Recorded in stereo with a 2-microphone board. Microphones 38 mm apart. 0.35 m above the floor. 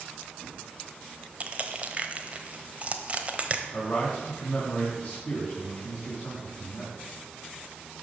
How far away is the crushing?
About 1.0 m.